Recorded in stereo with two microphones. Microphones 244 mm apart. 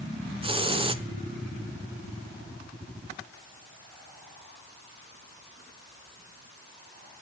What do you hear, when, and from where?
0.4 s a hiss: 20° right (ahead or behind), 0.7 m